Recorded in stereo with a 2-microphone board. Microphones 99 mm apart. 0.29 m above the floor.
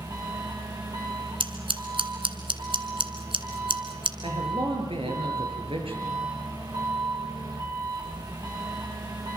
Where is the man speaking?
75° right (ahead or behind), 7 m.